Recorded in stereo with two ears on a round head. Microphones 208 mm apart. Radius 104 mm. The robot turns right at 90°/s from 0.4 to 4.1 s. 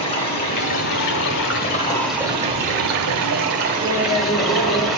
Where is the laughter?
Centre (ahead or behind), 2.0 m; by 4.9 s 20° left (ahead or behind), 2.0 m.